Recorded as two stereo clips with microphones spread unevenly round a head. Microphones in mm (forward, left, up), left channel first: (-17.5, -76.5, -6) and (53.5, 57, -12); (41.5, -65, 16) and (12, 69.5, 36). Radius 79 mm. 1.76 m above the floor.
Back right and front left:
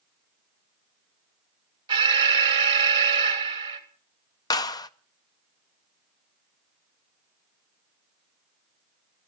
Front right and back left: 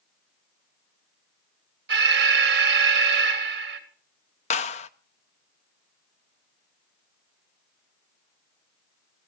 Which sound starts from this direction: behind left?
An alarm, at 1.9 s.